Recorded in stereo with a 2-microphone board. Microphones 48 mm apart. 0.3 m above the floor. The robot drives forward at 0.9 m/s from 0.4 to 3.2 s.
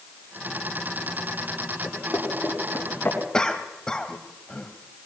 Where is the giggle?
I don't hear a giggle.